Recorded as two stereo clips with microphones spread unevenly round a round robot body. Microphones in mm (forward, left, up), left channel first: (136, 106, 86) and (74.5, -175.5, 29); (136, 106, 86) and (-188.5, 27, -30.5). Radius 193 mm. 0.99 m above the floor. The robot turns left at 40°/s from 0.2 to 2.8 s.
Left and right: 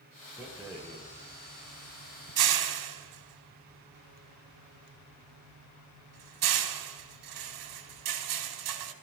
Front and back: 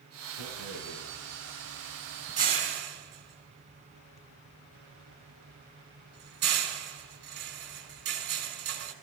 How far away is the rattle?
About 2.5 m.